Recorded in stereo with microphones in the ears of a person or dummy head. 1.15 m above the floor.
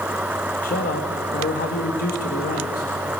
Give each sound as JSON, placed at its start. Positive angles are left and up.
{"t": 0.6, "sound": "a man speaking", "side_deg": 40, "distance_m": 1.9}